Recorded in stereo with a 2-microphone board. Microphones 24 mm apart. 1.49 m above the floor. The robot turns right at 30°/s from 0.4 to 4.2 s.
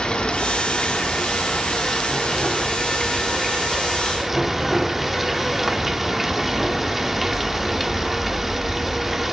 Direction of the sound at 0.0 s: 80° left.